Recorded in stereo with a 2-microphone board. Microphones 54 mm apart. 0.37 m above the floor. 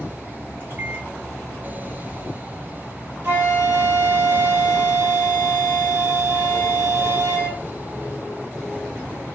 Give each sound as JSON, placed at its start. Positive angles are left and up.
{"t": 0.6, "sound": "a microwave", "side_deg": -40, "distance_m": 1.8}
{"t": 3.2, "sound": "a flute", "side_deg": -45, "distance_m": 1.9}